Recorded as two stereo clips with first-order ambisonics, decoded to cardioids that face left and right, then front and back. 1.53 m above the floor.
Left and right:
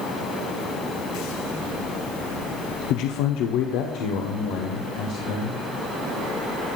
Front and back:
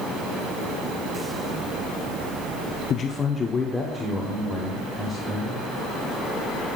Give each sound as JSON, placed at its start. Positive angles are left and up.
{"t": 2.9, "sound": "a man speaking", "azimuth_deg": 55, "distance_m": 0.5}